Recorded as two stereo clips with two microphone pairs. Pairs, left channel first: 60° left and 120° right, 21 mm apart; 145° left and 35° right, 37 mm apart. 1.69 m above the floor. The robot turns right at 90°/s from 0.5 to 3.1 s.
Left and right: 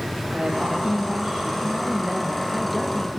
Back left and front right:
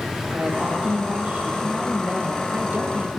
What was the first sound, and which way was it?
A woman speaking, 95° right.